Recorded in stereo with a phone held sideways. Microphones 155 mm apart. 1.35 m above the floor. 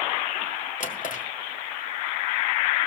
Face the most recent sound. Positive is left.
turn(degrees=60)  # may be behind; listen again after turning